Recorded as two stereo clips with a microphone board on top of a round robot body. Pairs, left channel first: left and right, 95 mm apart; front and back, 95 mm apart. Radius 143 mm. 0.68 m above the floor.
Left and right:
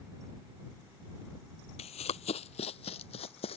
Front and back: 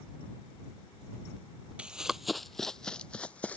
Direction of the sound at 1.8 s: 100° left.